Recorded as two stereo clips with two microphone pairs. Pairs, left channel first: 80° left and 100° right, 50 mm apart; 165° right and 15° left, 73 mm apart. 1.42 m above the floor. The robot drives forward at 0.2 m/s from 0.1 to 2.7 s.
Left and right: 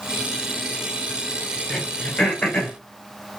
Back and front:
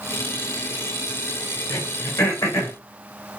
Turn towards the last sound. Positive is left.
turn(degrees=160)